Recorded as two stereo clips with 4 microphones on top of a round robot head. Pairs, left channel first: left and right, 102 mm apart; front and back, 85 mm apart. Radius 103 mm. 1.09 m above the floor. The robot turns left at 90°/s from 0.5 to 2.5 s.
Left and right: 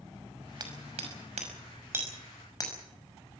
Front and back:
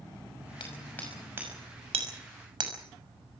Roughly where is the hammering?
Ahead right.